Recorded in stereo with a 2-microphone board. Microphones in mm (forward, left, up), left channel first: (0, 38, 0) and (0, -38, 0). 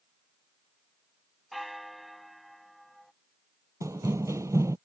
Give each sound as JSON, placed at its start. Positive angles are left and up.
{"t": 1.5, "sound": "a bell", "side_deg": 0}
{"t": 3.8, "sound": "running footsteps", "side_deg": -45}